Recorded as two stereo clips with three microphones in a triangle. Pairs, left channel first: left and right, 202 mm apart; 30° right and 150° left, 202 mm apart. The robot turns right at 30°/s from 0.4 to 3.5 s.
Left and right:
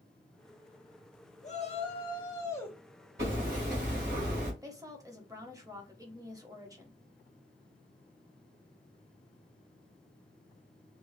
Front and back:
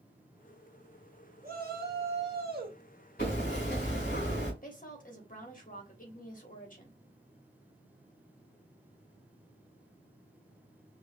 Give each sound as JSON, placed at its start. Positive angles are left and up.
{"t": 1.4, "sound": "a shout", "azimuth_deg": 130, "distance_m": 1.3}
{"t": 3.2, "sound": "hammering", "azimuth_deg": -65, "distance_m": 2.5}
{"t": 4.6, "sound": "a woman speaking", "azimuth_deg": -25, "distance_m": 1.1}